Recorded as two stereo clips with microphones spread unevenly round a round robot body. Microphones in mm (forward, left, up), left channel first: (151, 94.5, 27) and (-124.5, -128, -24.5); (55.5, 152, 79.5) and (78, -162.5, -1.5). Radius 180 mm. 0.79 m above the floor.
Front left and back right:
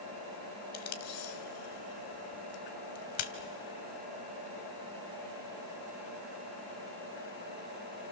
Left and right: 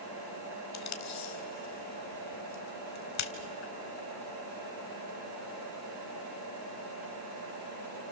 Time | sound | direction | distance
0.7 | tape being pulled | 60° left | 1.6 m